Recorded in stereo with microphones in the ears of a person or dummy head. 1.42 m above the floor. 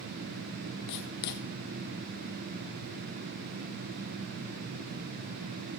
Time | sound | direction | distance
0.9 | writing | 50° left (ahead or behind) | 1.4 m